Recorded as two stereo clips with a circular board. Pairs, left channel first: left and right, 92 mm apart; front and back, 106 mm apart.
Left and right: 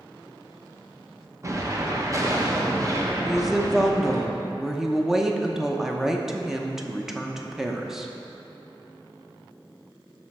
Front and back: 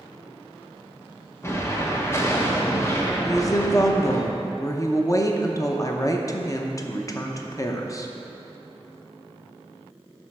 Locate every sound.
1.4 s an explosion: 55° right, 1.0 m
3.2 s a woman speaking: 10° right, 0.7 m